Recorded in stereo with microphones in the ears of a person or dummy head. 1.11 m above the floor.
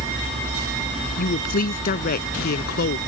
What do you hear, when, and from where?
1.2 s a woman speaking: 50° left (ahead or behind); by 3.0 s 60° left (ahead or behind)